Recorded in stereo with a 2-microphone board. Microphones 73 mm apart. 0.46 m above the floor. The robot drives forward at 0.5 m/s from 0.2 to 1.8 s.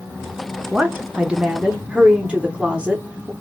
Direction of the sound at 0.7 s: 15° right (ahead or behind).